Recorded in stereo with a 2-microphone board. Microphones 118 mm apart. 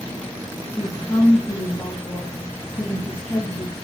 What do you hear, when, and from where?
0.8 s a woman speaking: 25° left (ahead or behind), 2.0 m